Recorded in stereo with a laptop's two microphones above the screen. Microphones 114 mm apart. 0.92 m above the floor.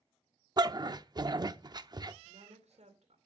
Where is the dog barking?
35° right (ahead or behind), 0.6 m.